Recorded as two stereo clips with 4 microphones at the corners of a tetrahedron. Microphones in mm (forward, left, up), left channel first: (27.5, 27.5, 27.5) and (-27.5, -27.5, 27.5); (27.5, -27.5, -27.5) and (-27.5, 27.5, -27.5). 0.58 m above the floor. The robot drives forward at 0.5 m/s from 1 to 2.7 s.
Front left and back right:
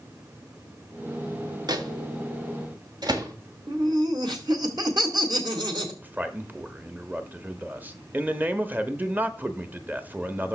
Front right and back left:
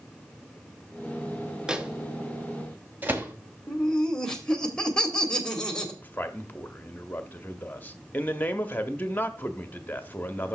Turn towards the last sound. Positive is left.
turn(degrees=-90)